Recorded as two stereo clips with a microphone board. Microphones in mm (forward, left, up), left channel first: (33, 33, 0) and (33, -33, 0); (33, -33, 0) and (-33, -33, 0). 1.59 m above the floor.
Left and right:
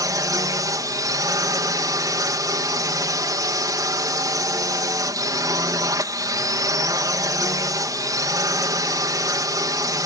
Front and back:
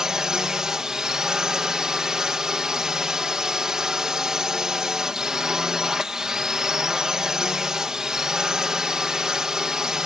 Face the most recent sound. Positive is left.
turn(degrees=-100)